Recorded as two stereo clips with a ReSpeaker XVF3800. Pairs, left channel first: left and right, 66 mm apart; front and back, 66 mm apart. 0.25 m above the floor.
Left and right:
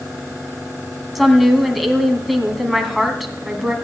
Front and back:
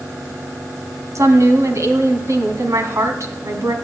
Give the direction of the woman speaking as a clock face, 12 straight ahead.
6 o'clock.